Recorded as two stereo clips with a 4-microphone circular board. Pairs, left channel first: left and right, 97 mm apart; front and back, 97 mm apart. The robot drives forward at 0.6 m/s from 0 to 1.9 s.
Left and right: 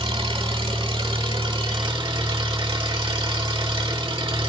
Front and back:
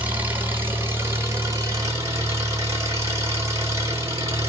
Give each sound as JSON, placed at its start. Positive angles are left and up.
{"t": 0.0, "sound": "an engine running", "azimuth_deg": -105, "distance_m": 3.5}